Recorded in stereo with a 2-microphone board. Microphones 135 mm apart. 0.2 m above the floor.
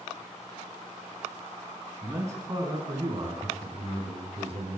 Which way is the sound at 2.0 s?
20° right (ahead or behind).